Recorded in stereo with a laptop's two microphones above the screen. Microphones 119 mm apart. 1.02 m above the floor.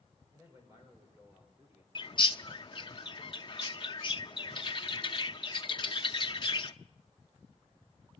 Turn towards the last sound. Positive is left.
turn(degrees=40)  # may be behind; listen again after turning